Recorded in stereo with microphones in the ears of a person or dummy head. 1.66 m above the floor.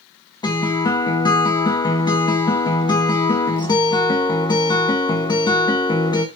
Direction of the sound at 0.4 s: 20° left (ahead or behind).